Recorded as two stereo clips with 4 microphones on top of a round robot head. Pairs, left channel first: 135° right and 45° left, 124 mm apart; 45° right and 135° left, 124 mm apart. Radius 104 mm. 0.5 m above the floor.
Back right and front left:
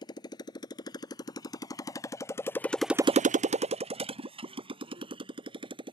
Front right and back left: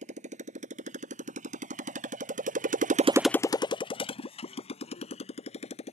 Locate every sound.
0.0 s a motorcycle: 165° left; by 5.9 s 5° right